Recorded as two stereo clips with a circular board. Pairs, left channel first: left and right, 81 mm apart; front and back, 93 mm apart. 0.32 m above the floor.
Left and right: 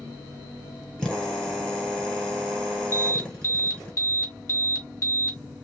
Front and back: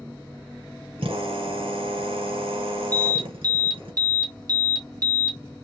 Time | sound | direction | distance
1.0 | a drill | 170° left | 2 m
2.9 | an alarm | 135° left | 2.5 m